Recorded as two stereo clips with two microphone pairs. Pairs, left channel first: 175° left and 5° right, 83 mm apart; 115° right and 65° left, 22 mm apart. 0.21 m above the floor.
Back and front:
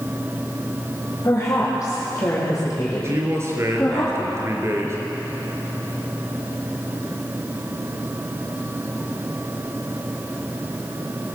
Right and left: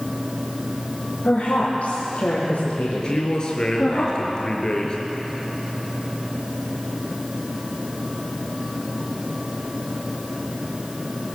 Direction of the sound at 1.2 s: 130° right.